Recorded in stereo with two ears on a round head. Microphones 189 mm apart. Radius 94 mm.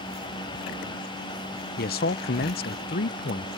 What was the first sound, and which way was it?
A man speaking, 45° left (ahead or behind).